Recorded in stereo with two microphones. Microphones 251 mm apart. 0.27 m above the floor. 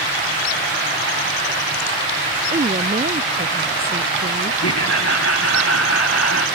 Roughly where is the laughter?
Left.